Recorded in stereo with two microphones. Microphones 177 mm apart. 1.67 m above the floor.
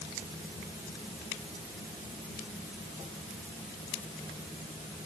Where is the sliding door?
No sliding door in this recording.